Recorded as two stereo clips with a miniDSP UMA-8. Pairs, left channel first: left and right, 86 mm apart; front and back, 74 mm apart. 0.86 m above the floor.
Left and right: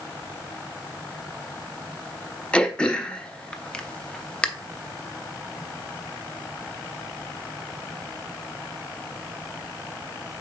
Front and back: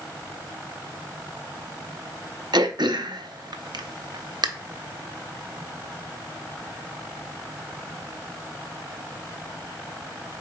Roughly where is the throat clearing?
Behind.